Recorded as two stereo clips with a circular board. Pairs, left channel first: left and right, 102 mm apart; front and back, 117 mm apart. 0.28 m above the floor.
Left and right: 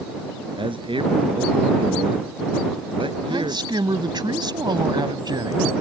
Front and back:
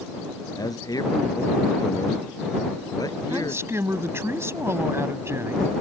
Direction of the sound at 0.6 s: 60° right.